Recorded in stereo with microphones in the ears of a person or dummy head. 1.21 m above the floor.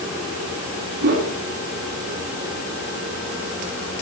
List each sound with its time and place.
1.0 s a whoosh: 55° right (ahead or behind), 4 m